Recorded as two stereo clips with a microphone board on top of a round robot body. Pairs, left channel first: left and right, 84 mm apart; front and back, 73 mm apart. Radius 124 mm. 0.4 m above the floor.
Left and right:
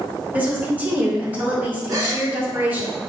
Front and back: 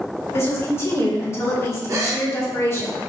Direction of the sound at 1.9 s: 130° right.